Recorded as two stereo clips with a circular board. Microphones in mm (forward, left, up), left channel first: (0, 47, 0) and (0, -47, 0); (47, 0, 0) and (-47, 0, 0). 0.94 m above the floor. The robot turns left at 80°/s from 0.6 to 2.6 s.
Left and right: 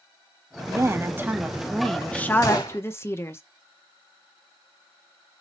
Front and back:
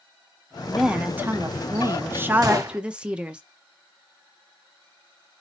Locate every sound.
0.7 s a woman speaking: 90° right, 0.6 m; by 3.4 s 115° left, 0.6 m
2.4 s a gunshot: 140° left, 1.5 m; by 2.8 s 125° left, 1.5 m